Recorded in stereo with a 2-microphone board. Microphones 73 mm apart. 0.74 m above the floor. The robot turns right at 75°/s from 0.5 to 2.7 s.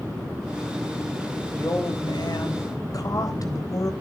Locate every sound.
1.6 s a woman speaking: 40° left, 3.5 m; by 3.9 s 125° left, 3.5 m